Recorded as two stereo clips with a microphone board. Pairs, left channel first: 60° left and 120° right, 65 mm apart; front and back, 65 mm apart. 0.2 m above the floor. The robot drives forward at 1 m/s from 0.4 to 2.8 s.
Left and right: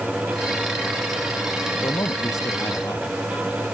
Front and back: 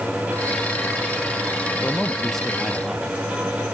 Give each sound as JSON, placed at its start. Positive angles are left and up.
{"t": 1.8, "sound": "a man speaking", "azimuth_deg": 75}